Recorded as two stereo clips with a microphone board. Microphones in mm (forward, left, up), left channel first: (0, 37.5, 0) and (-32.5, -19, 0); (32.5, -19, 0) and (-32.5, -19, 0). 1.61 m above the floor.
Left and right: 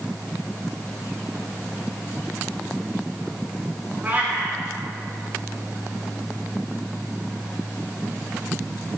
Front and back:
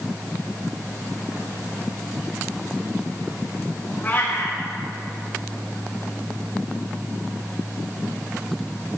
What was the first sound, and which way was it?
A cat meowing, 60° right.